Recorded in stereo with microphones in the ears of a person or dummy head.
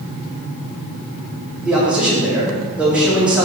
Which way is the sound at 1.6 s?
5° right (ahead or behind).